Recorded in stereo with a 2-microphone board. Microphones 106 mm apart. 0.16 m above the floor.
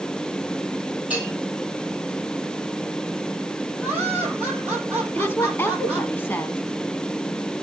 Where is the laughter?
15° right (ahead or behind), 5.5 m.